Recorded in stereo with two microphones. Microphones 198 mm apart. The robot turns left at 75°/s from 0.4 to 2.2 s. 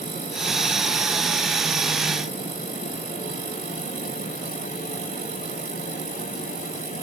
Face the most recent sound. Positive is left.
No sound to turn to.